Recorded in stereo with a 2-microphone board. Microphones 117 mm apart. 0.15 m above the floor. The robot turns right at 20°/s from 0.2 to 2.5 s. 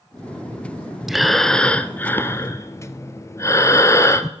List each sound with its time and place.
1.1 s breathing: centre (ahead or behind), 0.6 m; by 4.3 s 25° left (ahead or behind), 0.6 m